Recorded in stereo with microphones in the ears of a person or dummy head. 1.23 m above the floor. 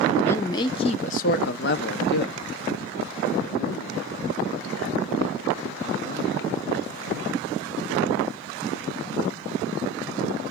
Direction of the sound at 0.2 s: 10° left (ahead or behind).